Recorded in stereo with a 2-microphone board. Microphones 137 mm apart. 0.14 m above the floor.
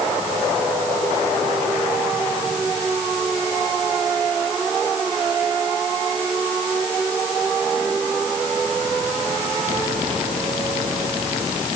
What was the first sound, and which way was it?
Only background noise.